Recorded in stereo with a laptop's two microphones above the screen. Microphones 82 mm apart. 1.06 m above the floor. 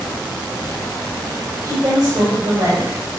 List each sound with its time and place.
1.6 s a woman speaking: 45° right (ahead or behind), 5 m